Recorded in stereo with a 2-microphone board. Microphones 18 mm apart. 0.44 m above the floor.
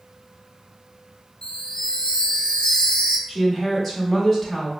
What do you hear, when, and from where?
1.4 s a chime: 50° left (ahead or behind), 0.6 m
3.3 s a woman speaking: 15° left (ahead or behind), 1.4 m